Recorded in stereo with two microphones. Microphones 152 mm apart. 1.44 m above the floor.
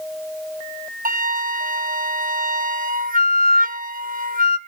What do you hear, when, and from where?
1.1 s a flute: 65° right (ahead or behind), 0.6 m